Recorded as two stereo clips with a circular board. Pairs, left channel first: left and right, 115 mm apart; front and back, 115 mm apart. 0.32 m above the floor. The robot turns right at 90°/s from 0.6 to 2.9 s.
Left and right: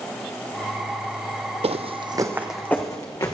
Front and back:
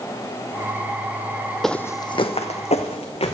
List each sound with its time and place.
1.6 s footsteps: 90° right, 0.6 m; by 3.3 s 30° left, 1.5 m